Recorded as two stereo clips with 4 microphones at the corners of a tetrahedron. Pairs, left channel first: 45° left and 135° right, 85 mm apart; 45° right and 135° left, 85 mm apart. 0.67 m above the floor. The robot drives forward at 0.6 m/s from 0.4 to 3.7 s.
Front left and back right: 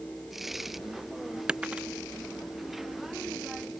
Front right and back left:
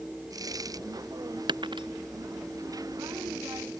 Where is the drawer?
No drawer in this recording.